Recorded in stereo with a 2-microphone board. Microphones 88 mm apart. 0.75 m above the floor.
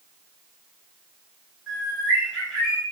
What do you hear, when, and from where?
1.7 s a bird: 5° right (ahead or behind), 1.8 m